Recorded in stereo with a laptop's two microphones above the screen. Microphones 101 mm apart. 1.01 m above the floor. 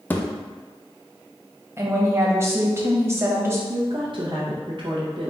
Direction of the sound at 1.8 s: 25° right (ahead or behind).